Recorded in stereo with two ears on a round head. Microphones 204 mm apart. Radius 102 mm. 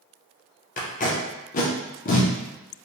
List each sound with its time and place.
0.8 s tape being pulled: 35° left (ahead or behind), 0.5 m